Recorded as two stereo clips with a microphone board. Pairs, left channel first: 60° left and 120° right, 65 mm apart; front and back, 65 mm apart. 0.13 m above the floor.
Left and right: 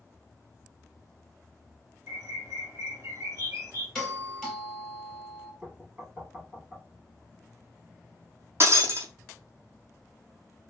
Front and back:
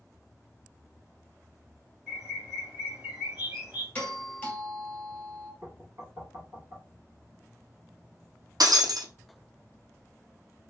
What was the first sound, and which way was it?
A bird, 115° right.